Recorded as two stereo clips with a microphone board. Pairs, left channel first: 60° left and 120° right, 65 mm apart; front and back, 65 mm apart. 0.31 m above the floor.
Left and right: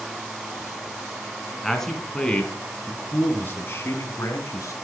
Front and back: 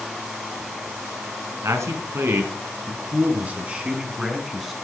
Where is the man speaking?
145° left, 3.5 m; by 4.7 s 95° left, 3.5 m.